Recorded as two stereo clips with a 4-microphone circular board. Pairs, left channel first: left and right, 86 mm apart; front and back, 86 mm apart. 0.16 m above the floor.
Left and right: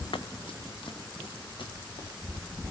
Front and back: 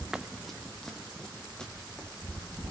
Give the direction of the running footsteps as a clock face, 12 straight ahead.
9 o'clock.